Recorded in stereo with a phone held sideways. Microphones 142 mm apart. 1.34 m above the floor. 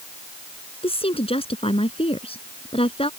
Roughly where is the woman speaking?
Left.